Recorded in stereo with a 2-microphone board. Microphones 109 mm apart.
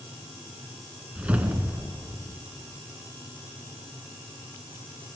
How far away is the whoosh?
About 1.0 m.